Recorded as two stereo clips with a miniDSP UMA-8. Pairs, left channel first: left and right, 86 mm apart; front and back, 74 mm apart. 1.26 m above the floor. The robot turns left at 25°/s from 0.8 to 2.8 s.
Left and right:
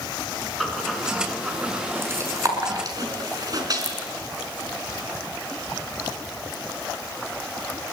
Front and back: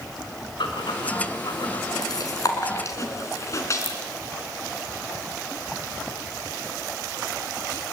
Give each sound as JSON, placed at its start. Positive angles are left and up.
{"t": 0.6, "sound": "breathing", "azimuth_deg": 5, "distance_m": 4.5}